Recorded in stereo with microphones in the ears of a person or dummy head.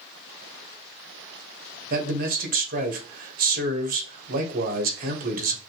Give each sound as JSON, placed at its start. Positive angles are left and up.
{"t": 1.9, "sound": "a man speaking", "side_deg": -50, "distance_m": 1.4}